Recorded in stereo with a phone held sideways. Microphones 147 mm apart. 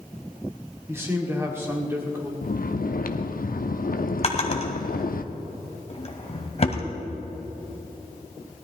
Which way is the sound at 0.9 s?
15° right (ahead or behind).